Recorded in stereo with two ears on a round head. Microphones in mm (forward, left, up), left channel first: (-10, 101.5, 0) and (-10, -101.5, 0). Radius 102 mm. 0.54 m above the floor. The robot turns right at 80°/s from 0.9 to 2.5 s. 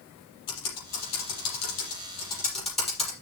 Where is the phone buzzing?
No phone buzzing in this recording.